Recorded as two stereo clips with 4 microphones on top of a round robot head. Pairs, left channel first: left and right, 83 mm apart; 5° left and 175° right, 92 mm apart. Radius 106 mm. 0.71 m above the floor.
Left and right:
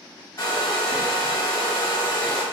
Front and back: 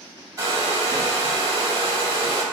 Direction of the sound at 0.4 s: 135° left.